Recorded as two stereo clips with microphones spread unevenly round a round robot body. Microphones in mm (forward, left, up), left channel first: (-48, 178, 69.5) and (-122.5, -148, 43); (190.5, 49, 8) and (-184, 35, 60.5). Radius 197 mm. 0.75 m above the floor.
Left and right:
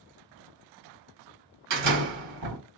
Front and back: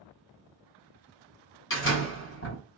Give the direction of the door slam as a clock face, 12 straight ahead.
2 o'clock.